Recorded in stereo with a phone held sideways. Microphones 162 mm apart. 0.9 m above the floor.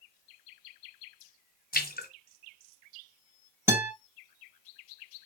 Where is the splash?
65° left (ahead or behind), 1.6 m.